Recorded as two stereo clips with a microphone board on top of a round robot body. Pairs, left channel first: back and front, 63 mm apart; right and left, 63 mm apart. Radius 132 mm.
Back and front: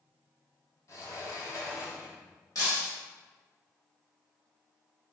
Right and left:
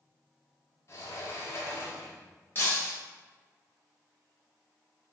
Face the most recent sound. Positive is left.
turn(degrees=-145)